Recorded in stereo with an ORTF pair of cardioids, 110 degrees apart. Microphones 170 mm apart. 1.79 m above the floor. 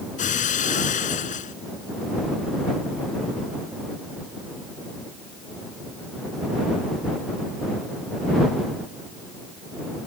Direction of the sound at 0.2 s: 50° left.